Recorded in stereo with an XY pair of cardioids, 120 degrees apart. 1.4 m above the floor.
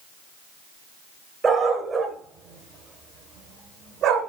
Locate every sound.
1.4 s a dog barking: 30° right, 3 m; by 4.3 s 75° right, 2.5 m